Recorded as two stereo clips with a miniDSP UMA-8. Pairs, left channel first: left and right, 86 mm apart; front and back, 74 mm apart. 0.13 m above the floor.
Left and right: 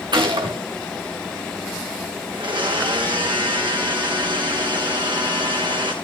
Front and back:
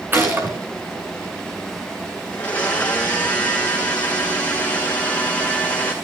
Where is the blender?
70° right, 3.5 m.